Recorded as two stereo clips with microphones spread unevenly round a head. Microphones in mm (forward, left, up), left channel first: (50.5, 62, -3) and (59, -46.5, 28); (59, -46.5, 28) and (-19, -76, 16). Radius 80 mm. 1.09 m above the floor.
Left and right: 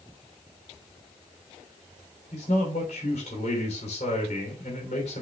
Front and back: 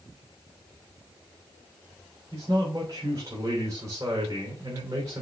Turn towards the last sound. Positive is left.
turn(degrees=135)